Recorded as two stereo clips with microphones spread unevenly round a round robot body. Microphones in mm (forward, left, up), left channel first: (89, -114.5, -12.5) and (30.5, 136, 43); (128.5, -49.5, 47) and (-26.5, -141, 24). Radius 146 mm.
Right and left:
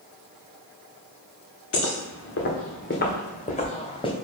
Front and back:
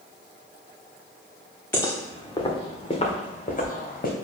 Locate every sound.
1.7 s footsteps: 45° right, 2.5 m; by 4.1 s 5° right, 2 m